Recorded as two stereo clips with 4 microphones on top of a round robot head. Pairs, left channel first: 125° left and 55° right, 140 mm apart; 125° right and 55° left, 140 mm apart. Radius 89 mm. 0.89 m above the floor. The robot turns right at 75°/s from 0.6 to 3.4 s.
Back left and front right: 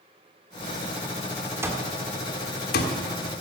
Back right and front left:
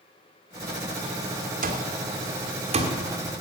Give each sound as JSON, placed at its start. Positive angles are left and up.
{"t": 1.6, "sound": "an alarm clock", "azimuth_deg": 20, "distance_m": 1.6}